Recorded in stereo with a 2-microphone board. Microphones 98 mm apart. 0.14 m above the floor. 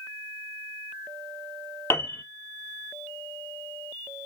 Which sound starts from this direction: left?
A piano, at 1.9 s.